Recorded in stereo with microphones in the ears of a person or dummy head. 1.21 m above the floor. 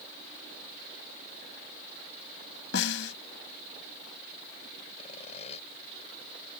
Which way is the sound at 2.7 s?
85° left.